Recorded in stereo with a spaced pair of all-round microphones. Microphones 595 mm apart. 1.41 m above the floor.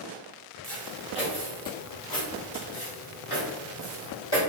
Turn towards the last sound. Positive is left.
turn(degrees=40)  # may be behind; listen again after turning